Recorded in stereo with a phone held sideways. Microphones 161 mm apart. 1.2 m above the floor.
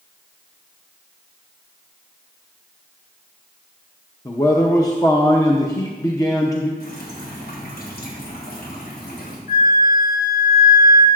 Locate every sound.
4.2 s a man speaking: 20° left (ahead or behind), 0.7 m
6.8 s dripping: 75° left (ahead or behind), 2 m
9.5 s a flute: 65° left (ahead or behind), 1.5 m